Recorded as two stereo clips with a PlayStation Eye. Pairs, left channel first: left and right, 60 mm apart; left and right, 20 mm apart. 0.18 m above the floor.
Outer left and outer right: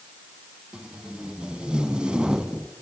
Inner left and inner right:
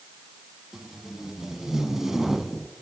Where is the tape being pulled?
15° right (ahead or behind), 0.8 m.